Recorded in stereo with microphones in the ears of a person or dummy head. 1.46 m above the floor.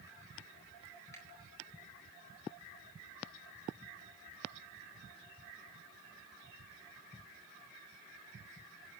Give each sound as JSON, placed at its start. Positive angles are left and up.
{"t": 1.1, "sound": "a finger snap", "side_deg": 10, "distance_m": 4.0}